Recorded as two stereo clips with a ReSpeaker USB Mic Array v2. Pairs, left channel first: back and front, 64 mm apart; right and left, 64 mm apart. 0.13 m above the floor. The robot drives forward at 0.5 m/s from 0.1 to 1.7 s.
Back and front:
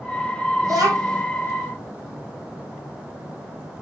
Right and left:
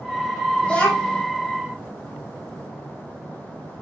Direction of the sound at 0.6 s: 15° right.